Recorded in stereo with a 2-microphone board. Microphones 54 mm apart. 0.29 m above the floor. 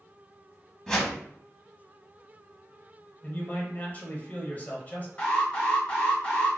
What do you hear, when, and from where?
0.9 s a whoosh: 15° left (ahead or behind), 1.0 m
3.2 s a man speaking: 35° left (ahead or behind), 1.0 m
5.2 s an alarm: 30° left (ahead or behind), 1.6 m